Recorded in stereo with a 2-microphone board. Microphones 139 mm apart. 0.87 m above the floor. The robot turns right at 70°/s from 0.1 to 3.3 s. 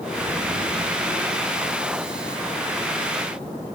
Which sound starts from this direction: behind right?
An explosion, at 0.1 s.